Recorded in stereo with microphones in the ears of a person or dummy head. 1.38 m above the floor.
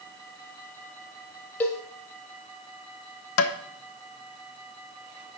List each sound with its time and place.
1.6 s a cowbell: 10° left (ahead or behind), 1.2 m
3.4 s tapping: 85° left, 0.9 m